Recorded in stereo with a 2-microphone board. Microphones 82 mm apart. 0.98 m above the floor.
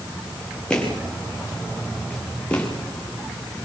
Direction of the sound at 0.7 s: 10° left (ahead or behind).